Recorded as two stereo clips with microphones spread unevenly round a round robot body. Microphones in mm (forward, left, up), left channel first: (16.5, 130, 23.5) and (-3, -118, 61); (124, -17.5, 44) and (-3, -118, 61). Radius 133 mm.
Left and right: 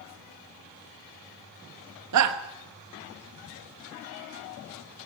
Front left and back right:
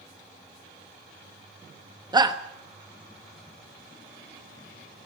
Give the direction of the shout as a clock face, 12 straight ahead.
2 o'clock.